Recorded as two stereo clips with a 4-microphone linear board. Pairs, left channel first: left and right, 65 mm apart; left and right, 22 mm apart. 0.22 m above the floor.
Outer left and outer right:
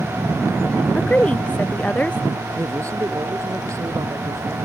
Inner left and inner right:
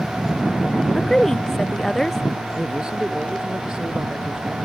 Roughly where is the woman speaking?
Left.